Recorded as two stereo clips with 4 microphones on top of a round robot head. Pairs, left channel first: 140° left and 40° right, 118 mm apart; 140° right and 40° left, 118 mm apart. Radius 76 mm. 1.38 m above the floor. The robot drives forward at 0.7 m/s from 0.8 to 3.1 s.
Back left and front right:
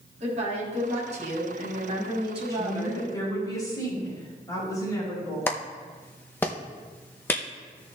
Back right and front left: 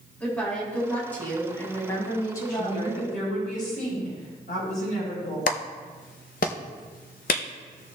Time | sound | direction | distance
0.2 | a woman speaking | 65° right | 4 m
2.5 | a woman speaking | 155° right | 4 m
5.5 | a clap | 150° right | 0.7 m